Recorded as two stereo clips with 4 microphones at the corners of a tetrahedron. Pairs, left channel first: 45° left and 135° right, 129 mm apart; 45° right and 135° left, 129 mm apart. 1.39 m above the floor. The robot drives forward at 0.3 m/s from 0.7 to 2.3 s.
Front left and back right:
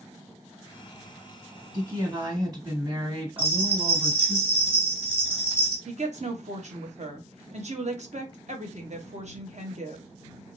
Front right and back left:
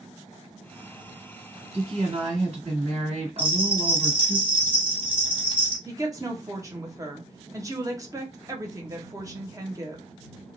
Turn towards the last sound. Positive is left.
turn(degrees=-160)